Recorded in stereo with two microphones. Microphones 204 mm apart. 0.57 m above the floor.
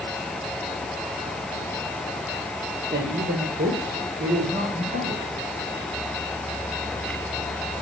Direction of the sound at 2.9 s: 55° right (ahead or behind).